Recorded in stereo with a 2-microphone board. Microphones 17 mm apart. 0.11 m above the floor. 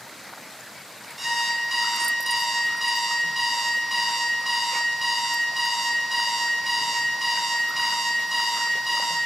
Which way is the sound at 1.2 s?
Centre (ahead or behind).